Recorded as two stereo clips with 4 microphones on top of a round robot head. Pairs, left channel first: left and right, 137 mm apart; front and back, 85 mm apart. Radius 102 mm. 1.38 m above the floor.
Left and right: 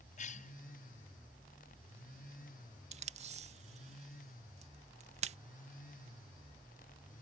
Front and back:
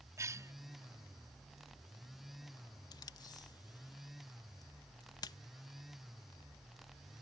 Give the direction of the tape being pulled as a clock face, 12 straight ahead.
2 o'clock.